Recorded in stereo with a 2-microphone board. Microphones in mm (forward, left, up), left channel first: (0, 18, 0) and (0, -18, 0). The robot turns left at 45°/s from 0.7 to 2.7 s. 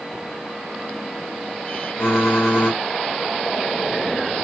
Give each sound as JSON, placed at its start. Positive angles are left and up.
{"t": 2.0, "sound": "typing on a keyboard", "azimuth_deg": 70, "distance_m": 2.0}